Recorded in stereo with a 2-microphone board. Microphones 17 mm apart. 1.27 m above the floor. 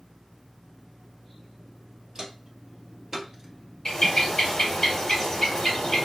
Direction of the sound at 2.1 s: 35° right (ahead or behind).